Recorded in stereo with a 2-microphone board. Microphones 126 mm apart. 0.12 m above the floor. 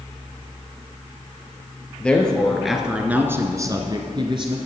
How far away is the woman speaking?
About 2 m.